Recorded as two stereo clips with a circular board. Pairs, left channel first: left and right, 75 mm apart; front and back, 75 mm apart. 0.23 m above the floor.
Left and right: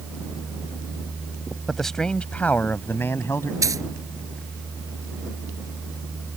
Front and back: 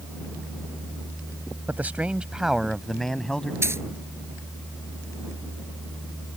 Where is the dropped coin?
130° right.